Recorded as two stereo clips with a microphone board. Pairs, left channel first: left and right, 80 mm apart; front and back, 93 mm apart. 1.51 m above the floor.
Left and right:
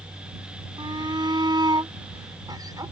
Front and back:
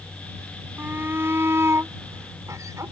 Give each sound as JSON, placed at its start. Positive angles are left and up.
{"t": 0.8, "sound": "a shout", "azimuth_deg": -110}